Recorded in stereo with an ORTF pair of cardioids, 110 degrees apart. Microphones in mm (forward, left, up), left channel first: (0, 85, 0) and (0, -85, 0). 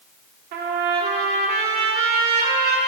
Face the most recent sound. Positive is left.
turn(degrees=-65)